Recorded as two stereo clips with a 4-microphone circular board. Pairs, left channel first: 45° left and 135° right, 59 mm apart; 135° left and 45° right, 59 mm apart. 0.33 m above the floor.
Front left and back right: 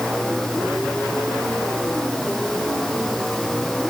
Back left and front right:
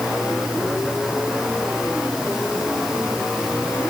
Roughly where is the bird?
No bird in this recording.